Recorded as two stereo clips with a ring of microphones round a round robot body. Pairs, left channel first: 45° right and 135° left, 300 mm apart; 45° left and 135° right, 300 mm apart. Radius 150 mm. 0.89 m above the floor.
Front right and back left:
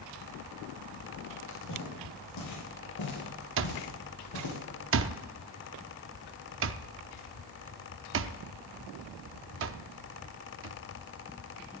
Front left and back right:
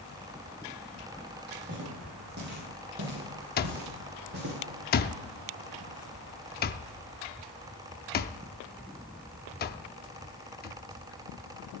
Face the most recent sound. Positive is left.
turn(degrees=95)